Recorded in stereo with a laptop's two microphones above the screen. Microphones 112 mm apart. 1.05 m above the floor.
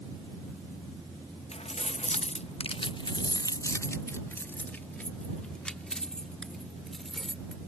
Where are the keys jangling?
70° left (ahead or behind); by 7.6 s 5° left (ahead or behind).